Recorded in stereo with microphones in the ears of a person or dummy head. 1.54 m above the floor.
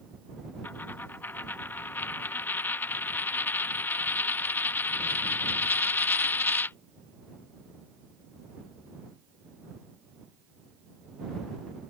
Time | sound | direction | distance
0.6 | a dropped coin | 15° left (ahead or behind) | ?